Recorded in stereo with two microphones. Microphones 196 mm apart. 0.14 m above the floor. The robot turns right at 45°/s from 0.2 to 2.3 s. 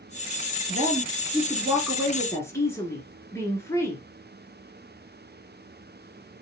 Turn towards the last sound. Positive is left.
turn(degrees=15)